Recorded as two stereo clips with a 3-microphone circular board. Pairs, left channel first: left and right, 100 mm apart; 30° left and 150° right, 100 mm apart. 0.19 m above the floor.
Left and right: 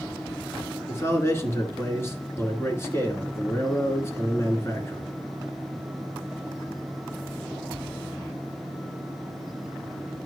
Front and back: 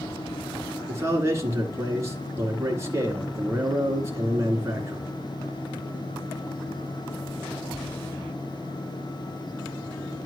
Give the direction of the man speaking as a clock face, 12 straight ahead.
7 o'clock.